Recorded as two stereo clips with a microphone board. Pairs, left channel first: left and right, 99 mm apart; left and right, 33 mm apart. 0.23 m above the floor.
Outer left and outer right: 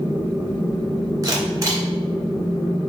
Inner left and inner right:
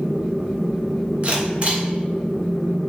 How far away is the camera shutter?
About 1.6 m.